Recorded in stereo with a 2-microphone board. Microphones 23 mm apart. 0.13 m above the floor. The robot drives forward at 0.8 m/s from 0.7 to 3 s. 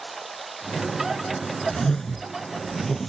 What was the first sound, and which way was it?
Running water, centre (ahead or behind).